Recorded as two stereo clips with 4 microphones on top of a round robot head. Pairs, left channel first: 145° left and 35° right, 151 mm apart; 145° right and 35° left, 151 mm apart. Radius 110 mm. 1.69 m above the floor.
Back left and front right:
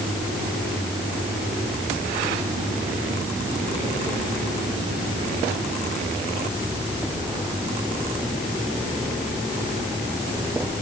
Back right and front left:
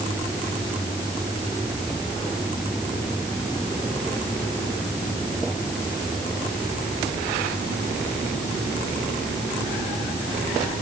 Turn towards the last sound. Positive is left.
No sound to turn to.